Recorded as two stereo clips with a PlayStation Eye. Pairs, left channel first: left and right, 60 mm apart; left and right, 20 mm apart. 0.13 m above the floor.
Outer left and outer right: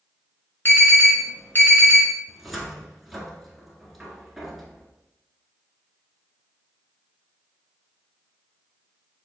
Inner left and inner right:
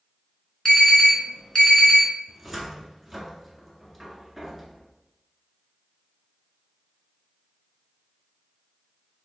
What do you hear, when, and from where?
0.7 s an alarm: 35° left (ahead or behind), 1.5 m
2.3 s a cupboard door: centre (ahead or behind), 1.0 m